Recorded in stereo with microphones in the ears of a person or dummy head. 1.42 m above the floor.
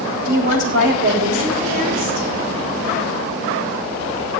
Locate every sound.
0.2 s a woman speaking: 50° right (ahead or behind), 4.5 m